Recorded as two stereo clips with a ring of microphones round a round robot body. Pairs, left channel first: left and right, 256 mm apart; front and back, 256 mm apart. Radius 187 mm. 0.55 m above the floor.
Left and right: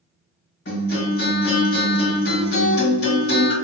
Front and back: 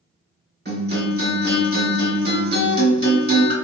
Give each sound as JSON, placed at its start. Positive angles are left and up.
{"t": 0.7, "sound": "a guitar", "azimuth_deg": 130, "distance_m": 2.0}